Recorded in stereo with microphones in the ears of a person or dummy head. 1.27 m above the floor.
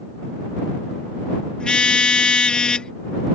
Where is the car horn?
15° left (ahead or behind).